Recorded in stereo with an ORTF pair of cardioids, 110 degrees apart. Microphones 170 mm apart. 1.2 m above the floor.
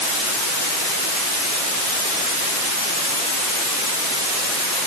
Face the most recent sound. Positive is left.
No sound to turn to.